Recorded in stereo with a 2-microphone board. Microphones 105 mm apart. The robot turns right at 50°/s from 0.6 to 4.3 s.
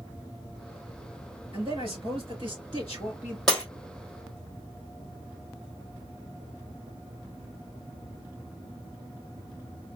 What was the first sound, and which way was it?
A man speaking, 110° right.